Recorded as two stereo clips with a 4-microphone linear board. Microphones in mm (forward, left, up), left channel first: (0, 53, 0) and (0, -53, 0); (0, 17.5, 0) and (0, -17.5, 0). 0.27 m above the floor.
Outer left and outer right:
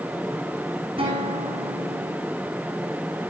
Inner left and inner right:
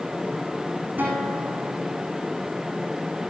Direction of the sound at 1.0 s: 55° right (ahead or behind).